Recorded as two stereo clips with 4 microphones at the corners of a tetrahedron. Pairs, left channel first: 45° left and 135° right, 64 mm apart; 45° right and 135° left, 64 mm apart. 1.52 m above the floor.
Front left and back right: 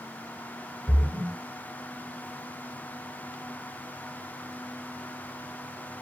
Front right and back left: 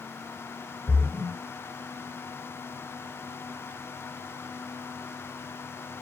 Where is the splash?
160° left, 1.3 m.